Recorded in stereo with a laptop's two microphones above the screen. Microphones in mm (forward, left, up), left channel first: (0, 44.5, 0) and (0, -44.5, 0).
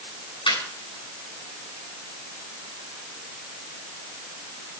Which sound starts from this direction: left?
Laughter, at 0.5 s.